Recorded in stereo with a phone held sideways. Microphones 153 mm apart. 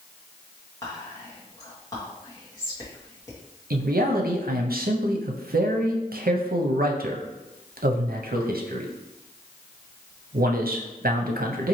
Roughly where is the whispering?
Left.